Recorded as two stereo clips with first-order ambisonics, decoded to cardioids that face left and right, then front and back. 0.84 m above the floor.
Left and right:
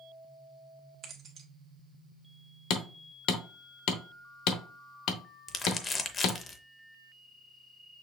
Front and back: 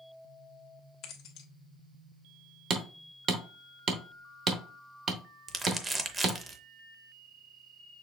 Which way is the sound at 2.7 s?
125° left.